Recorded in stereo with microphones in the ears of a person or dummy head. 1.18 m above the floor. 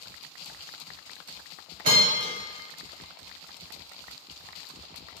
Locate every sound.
1.8 s a bell: 50° right (ahead or behind), 1.4 m